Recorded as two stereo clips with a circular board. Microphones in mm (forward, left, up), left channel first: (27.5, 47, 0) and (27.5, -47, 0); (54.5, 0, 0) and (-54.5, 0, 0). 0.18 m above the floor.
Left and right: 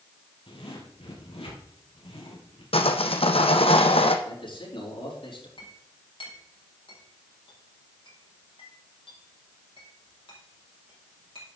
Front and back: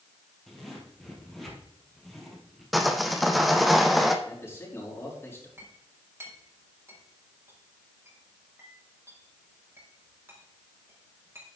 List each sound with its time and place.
0.5 s a zipper: 90° left, 3.5 m
2.7 s sawing: 90° left, 1.3 m
4.2 s a man speaking: 65° left, 6.5 m
5.6 s a clink: 115° left, 4.5 m